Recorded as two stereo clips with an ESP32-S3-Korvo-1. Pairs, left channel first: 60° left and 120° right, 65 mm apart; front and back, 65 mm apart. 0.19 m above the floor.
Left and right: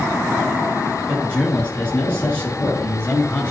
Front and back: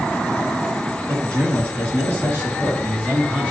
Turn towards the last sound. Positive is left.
turn(degrees=115)